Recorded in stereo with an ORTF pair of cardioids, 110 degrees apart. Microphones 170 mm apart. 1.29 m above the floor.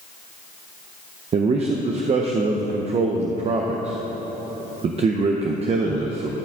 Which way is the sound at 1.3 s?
40° right.